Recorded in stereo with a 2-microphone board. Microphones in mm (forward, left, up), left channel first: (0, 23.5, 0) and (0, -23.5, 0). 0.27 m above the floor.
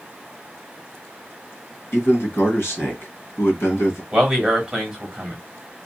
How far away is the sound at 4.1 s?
About 1.5 m.